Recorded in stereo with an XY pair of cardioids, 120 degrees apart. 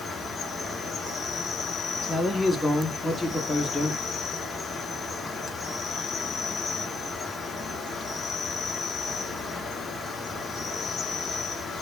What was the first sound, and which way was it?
An insect, 35° left.